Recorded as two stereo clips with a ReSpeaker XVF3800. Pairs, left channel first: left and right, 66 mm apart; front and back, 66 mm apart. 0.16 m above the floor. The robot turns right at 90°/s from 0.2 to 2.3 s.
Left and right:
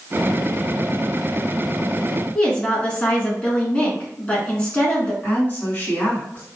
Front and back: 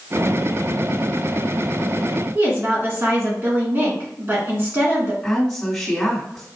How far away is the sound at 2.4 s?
About 1.4 m.